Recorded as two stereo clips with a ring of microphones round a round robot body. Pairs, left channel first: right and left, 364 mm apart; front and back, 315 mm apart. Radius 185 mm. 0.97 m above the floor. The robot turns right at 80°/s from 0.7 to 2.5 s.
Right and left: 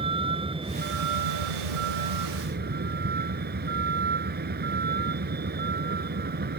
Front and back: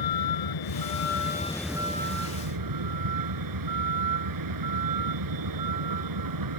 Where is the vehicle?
15° left; by 6.6 s 155° left.